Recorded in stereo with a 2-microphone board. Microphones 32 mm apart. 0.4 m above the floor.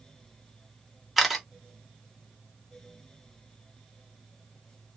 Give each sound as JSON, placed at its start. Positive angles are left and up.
{"t": 1.2, "sound": "a camera shutter", "side_deg": -5, "distance_m": 0.9}